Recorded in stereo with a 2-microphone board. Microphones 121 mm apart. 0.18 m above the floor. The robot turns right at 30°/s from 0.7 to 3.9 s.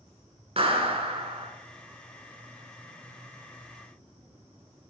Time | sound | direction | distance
0.6 | a clap | 55° right (ahead or behind) | 1.3 m